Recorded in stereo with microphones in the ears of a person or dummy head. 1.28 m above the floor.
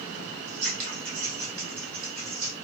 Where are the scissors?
45° right (ahead or behind), 1.4 m.